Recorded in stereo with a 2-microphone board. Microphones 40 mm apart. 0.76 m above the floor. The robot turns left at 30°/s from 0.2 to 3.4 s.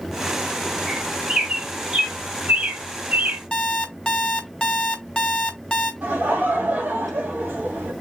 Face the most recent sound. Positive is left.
turn(degrees=-50)  # may be behind; listen again after turning